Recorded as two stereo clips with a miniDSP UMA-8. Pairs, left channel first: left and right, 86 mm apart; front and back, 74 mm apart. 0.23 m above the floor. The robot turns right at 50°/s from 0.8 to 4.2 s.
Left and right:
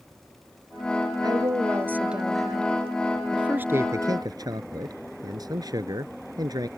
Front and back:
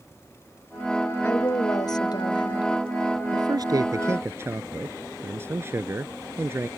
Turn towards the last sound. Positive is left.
turn(degrees=-125)